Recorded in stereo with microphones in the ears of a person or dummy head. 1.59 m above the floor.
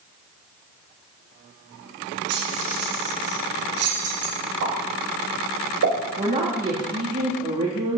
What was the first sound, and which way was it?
Keys jangling, 75° right (ahead or behind).